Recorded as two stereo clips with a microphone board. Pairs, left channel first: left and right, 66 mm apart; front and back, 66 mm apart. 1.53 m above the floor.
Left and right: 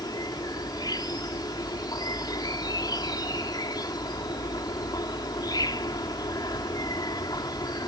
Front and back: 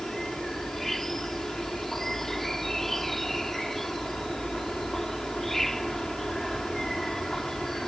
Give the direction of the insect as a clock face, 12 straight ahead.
9 o'clock.